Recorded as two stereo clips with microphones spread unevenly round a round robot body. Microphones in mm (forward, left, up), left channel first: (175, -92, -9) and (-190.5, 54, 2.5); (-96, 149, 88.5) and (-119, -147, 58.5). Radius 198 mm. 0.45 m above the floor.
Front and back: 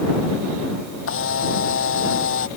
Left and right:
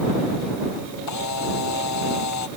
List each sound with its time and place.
1.1 s a camera shutter: 40° left